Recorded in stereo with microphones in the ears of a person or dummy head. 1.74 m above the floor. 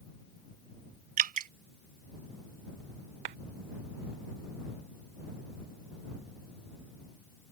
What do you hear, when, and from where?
1.2 s dripping: 45° right (ahead or behind)
3.2 s a clap: 30° right (ahead or behind)